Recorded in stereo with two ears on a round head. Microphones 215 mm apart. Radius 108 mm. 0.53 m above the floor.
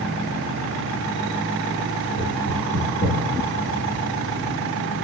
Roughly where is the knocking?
Left.